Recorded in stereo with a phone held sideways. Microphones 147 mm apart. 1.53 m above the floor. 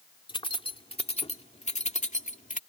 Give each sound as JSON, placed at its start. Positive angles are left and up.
{"t": 0.3, "sound": "keys jangling", "side_deg": 35}